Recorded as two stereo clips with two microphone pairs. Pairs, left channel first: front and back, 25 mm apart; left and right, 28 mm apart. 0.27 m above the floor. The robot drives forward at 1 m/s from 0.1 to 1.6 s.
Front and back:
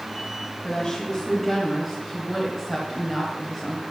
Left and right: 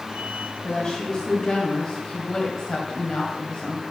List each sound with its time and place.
0.6 s a woman speaking: 40° left, 1.5 m; by 3.8 s 100° left, 1.2 m